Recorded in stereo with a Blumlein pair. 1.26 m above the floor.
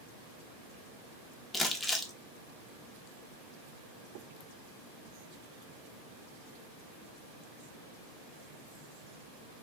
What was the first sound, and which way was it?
Crumpling, 10° left.